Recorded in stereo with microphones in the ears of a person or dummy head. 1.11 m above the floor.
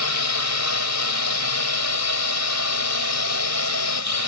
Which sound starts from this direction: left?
A drone, at 0.0 s.